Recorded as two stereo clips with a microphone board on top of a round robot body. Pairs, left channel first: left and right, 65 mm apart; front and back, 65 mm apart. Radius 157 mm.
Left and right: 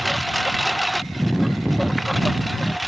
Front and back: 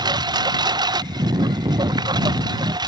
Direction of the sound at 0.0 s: Straight behind.